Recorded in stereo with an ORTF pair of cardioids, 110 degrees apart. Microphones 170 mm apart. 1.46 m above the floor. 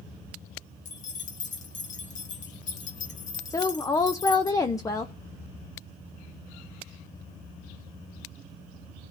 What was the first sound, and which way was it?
Keys jangling, 50° left.